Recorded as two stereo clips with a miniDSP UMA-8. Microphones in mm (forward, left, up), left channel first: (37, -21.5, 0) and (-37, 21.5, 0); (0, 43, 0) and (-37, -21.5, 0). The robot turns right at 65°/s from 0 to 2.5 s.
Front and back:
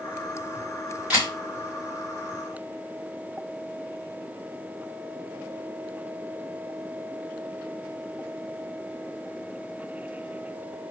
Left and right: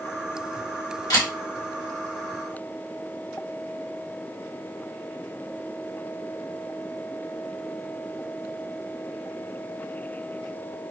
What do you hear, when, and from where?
1.1 s a camera shutter: 75° left, 2.5 m; by 1.3 s 90° left, 2.5 m